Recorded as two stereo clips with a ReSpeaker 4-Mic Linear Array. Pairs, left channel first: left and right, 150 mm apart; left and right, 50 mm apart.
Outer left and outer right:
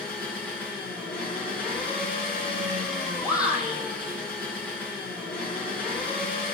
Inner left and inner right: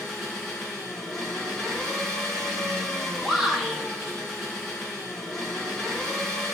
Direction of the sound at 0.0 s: 5° left (ahead or behind).